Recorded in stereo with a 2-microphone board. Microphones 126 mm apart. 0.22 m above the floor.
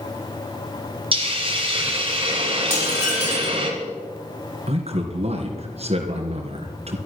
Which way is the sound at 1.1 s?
45° right (ahead or behind).